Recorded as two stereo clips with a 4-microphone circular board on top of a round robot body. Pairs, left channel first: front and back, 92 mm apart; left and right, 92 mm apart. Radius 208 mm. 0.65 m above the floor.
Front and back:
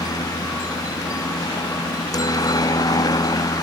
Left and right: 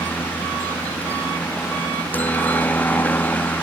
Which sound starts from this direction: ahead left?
A helicopter, at 0.0 s.